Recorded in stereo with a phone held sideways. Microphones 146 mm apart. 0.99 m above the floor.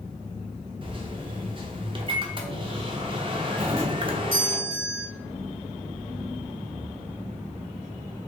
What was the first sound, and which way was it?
A microwave, 35° right (ahead or behind).